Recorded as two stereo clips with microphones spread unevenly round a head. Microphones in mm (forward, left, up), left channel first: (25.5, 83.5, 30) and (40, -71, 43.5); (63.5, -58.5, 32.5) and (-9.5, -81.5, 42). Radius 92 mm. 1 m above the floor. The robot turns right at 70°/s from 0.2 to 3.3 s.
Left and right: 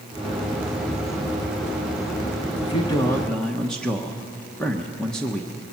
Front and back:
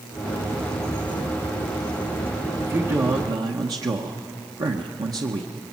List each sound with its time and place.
2.6 s a man speaking: 130° left, 1.1 m; by 5.7 s 175° left, 1.1 m